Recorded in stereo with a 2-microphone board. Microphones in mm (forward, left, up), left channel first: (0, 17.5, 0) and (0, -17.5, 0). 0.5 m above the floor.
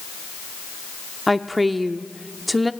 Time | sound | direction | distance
1.3 | a woman speaking | centre (ahead or behind) | 0.7 m